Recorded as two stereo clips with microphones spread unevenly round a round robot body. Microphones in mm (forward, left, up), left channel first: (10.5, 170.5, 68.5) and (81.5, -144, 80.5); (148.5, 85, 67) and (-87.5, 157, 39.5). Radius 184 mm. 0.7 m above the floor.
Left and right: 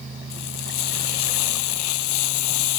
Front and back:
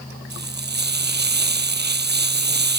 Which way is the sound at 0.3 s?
115° left.